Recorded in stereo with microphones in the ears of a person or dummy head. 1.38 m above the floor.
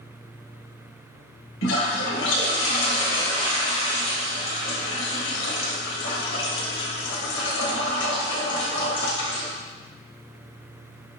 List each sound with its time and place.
1.6 s a toilet flushing: 60° left (ahead or behind), 1.4 m